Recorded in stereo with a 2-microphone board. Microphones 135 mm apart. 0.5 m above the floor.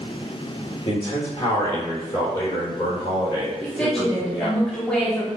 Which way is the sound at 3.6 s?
5° left (ahead or behind).